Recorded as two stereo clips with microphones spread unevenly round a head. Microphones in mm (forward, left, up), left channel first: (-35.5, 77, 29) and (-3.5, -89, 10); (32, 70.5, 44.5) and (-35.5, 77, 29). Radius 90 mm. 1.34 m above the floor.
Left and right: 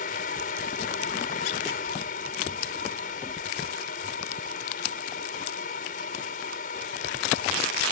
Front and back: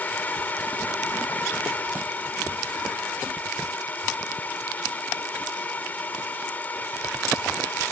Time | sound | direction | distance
0.0 | a fan | 55° left | ?